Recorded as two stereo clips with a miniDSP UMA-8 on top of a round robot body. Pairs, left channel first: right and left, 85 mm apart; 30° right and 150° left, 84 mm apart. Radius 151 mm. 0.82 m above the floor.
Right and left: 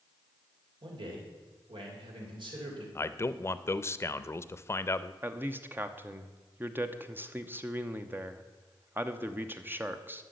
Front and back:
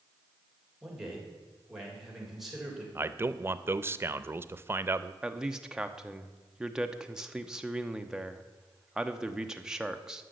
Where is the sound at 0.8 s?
60° left, 3 m.